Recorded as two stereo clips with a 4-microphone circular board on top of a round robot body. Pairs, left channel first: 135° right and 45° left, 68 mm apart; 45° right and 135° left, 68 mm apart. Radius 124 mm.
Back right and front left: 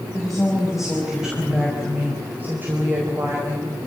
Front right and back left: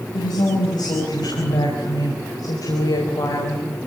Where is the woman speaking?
50° right, 5.5 m; by 3.7 s straight ahead, 4.5 m.